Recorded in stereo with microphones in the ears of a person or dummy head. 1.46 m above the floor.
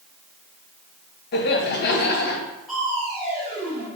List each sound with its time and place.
1.3 s laughter: 50° left (ahead or behind), 0.7 m
2.7 s crushing: centre (ahead or behind), 1.6 m